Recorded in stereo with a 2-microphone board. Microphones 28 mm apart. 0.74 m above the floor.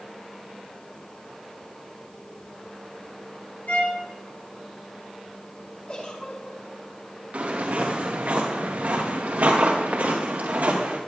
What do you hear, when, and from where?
3.7 s a violin: 85° left, 6 m
5.9 s a giggle: 45° left (ahead or behind), 4.5 m
7.3 s footsteps: 65° right (ahead or behind), 4.5 m; by 11.0 s 80° right, 4 m